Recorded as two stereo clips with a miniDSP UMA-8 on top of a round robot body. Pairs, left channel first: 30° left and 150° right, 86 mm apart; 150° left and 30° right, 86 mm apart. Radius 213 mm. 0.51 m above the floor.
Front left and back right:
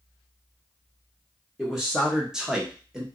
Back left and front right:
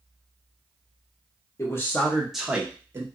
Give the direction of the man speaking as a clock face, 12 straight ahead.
8 o'clock.